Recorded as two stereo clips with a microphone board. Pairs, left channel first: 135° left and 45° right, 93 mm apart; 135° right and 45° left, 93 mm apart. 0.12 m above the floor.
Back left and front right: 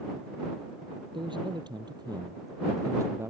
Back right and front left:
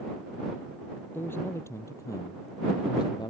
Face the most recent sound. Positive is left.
turn(degrees=-105)